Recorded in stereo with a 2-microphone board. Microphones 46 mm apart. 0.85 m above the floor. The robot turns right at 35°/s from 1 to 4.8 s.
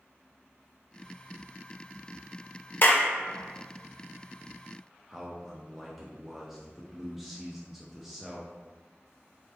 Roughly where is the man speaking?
Centre.